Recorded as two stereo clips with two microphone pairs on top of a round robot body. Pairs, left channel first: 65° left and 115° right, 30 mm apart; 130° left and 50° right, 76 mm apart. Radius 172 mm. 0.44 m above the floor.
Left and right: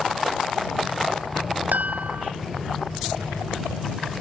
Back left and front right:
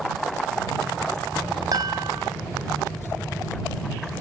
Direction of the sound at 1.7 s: 95° right.